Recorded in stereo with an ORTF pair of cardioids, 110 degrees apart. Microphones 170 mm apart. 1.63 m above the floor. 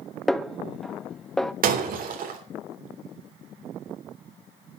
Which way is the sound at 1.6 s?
60° right.